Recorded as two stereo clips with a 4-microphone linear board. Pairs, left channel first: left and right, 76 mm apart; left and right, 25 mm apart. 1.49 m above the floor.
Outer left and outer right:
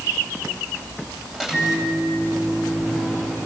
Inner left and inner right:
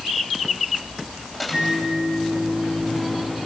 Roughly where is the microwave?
Centre.